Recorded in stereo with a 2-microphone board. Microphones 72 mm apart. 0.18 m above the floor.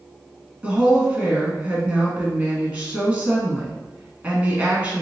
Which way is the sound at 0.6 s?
20° right (ahead or behind).